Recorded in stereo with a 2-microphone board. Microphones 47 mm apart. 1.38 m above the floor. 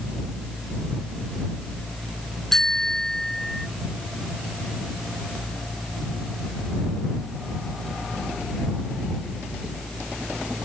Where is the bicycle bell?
10° left (ahead or behind); by 3.7 s 5° left (ahead or behind).